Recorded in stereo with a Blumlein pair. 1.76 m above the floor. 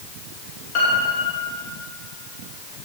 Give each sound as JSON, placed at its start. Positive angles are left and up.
{"t": 0.8, "sound": "a piano", "azimuth_deg": 45, "distance_m": 2.5}